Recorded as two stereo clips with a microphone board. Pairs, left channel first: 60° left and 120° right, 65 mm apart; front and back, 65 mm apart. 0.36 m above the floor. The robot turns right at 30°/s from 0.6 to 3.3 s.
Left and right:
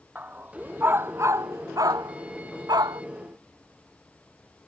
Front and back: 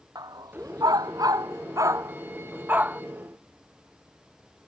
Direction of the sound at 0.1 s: 175° left.